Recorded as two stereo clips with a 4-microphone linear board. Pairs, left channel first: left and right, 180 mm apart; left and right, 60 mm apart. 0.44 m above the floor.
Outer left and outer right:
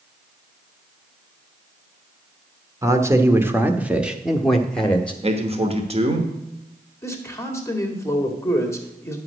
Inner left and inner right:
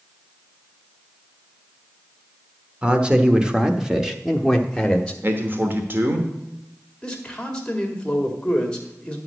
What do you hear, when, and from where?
2.8 s a man speaking: 20° right (ahead or behind), 1.1 m; by 5.1 s 10° left (ahead or behind), 1.0 m
5.2 s a man speaking: 35° right (ahead or behind), 1.1 m
7.0 s a man speaking: 15° left (ahead or behind), 1.8 m